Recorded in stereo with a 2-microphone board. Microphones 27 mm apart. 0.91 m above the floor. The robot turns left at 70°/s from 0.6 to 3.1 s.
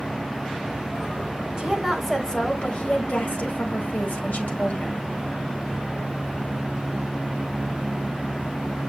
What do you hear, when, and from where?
1.6 s a woman speaking: 155° right, 4.5 m; by 5.0 s 100° left, 4.5 m